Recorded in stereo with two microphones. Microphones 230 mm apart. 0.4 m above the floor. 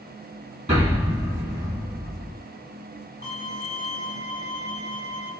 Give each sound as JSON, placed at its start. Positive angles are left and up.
{"t": 0.7, "sound": "an explosion", "side_deg": -30, "distance_m": 2.5}
{"t": 3.2, "sound": "a violin", "side_deg": -45, "distance_m": 2.0}